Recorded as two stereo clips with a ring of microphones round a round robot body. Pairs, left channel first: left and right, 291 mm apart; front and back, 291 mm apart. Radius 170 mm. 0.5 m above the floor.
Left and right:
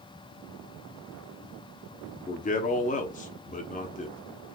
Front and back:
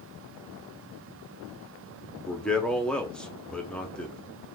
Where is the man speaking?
80° left, 0.8 m.